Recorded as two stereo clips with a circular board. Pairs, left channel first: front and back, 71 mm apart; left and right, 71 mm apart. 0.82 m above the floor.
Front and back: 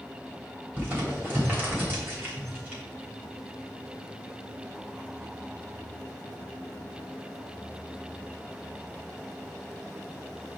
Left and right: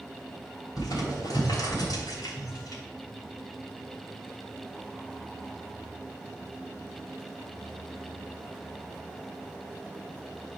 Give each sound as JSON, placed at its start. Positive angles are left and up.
{"t": 0.8, "sound": "crumpling", "azimuth_deg": 120, "distance_m": 3.0}